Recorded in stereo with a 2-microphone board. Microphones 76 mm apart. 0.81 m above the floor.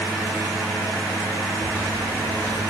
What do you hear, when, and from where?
1.6 s a microwave: 25° left (ahead or behind), 3 m